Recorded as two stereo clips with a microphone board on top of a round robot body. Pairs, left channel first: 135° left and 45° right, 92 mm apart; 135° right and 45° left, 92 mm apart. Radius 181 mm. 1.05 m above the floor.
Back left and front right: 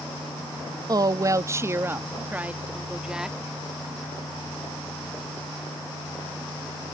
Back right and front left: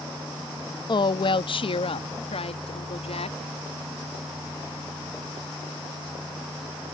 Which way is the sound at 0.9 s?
95° right.